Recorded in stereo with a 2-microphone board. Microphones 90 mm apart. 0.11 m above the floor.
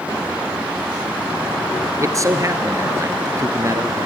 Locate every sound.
2.0 s a man speaking: 35° right (ahead or behind), 1.5 m